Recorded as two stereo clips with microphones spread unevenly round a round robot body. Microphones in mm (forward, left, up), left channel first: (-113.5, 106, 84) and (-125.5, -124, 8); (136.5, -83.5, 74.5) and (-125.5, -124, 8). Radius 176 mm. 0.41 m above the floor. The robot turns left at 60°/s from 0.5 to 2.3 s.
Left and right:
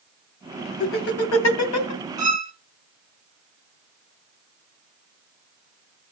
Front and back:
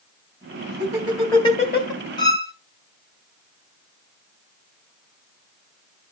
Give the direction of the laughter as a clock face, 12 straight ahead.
8 o'clock.